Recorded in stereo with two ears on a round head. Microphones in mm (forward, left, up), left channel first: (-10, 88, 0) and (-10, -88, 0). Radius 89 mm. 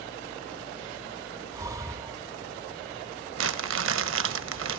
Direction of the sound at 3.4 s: 75° right (ahead or behind).